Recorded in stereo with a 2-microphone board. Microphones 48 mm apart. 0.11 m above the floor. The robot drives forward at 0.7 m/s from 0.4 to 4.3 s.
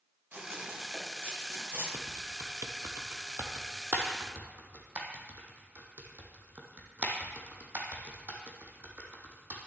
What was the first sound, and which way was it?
Running footsteps, 55° right (ahead or behind).